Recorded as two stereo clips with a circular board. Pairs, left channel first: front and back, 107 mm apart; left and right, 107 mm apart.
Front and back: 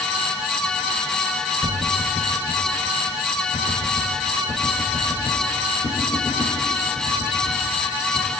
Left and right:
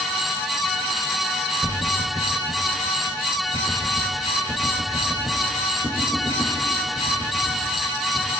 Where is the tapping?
30° right, 4 m.